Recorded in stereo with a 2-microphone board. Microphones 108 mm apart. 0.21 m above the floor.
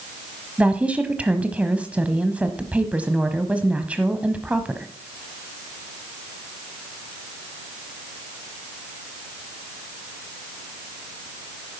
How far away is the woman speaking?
About 1.0 m.